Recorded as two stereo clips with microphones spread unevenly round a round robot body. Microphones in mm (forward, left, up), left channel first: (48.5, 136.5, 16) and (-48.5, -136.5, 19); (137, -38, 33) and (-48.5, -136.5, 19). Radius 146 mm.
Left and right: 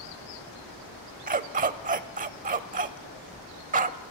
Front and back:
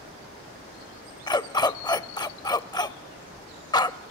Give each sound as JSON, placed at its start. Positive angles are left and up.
{"t": 1.3, "sound": "a dog barking", "azimuth_deg": -45, "distance_m": 0.8}